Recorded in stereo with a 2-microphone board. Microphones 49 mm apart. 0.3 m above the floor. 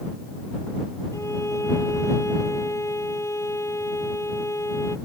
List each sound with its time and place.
1.1 s a violin: 80° left